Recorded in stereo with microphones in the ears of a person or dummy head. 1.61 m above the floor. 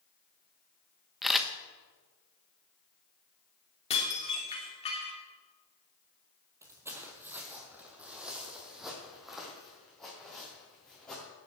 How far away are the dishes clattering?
About 3 m.